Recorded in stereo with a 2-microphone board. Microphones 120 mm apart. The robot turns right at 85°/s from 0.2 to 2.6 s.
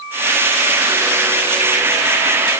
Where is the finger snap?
No finger snap in this recording.